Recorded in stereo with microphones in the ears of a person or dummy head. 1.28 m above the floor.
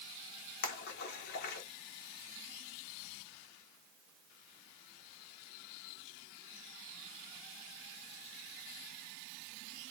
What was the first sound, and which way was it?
A splash, 55° left (ahead or behind).